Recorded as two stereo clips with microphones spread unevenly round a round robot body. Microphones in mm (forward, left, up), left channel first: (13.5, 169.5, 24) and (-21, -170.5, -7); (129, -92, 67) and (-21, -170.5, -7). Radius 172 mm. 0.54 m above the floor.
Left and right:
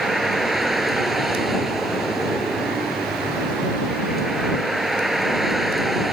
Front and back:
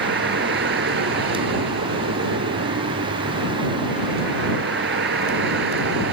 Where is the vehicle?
175° left.